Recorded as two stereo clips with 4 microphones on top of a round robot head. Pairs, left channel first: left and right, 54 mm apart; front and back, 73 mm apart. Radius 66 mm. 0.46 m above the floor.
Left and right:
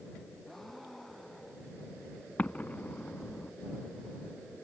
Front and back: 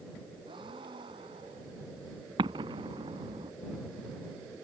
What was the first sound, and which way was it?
A gasp, straight behind.